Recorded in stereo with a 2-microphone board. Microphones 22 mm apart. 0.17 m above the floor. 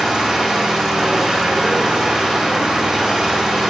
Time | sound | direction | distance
0.0 | an engine running | 25° right (ahead or behind) | 4.5 m